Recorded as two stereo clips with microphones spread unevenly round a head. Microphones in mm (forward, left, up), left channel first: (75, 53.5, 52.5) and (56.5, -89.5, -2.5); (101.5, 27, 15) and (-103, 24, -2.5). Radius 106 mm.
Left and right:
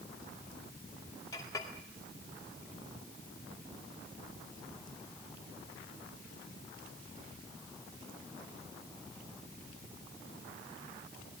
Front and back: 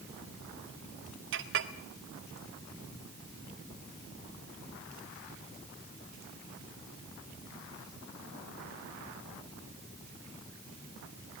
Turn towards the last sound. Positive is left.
turn(degrees=150)